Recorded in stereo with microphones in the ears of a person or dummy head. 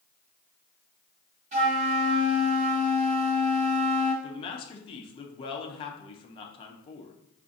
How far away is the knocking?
I don't hear knocking.